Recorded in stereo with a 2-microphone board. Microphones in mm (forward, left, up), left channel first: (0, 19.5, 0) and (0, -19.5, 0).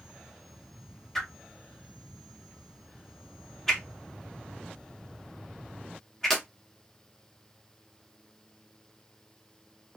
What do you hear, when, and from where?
1.1 s a whoosh: 10° left (ahead or behind), 0.8 m